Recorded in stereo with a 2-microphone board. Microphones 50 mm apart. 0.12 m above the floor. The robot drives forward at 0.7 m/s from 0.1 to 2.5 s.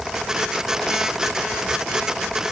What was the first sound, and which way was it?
Only background noise.